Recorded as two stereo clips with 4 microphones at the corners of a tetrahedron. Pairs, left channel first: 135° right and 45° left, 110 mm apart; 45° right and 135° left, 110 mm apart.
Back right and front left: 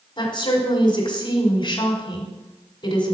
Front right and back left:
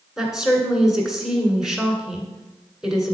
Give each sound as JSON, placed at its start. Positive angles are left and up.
{"t": 0.2, "sound": "a woman speaking", "azimuth_deg": -140, "distance_m": 1.7}